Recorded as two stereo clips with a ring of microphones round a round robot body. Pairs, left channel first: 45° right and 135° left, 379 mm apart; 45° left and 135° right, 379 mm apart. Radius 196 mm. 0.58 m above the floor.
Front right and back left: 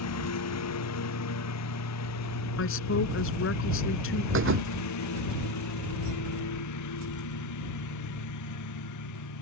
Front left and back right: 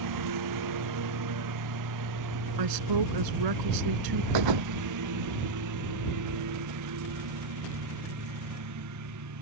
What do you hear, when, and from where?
0.0 s a lawn mower: 95° right; by 9.4 s 90° right
2.6 s a woman speaking: 105° right
4.3 s a thud: 165° right